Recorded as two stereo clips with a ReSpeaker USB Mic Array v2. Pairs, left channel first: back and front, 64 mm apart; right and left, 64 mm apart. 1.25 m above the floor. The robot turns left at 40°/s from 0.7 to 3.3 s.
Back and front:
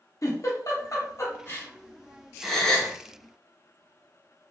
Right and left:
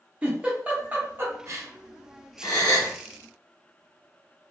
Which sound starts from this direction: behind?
A giggle, at 0.2 s.